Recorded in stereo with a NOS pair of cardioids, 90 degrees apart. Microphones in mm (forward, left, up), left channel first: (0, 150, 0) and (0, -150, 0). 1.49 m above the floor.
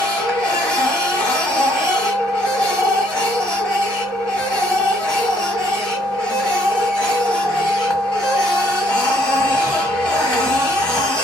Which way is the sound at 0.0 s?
5° left.